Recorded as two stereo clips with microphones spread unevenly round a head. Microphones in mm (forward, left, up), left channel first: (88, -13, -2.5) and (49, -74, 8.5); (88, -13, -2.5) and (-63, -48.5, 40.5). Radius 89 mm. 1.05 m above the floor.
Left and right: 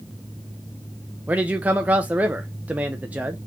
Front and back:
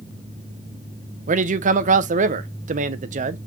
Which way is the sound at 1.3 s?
165° left.